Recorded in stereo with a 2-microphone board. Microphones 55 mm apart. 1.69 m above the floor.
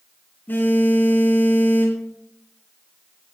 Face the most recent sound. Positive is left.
turn(degrees=35)  # may be behind; listen again after turning